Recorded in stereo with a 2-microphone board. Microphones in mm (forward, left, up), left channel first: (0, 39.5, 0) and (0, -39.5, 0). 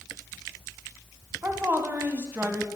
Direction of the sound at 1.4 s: 25° right (ahead or behind).